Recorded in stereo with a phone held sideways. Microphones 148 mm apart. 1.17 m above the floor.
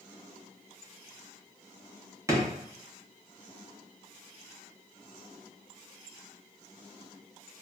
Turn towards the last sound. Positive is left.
turn(degrees=-20)  # may be behind; listen again after turning